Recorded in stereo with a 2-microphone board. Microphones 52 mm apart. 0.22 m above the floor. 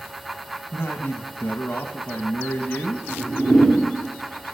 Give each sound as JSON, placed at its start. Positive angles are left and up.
{"t": 0.7, "sound": "a man speaking", "side_deg": 35, "distance_m": 1.1}
{"t": 3.1, "sound": "a whoosh", "side_deg": 0, "distance_m": 6.0}